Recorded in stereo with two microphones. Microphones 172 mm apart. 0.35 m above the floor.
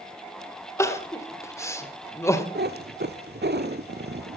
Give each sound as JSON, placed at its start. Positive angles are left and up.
{"t": 0.8, "sound": "crying", "side_deg": 20, "distance_m": 1.6}
{"t": 2.5, "sound": "a cat meowing", "side_deg": -75, "distance_m": 1.0}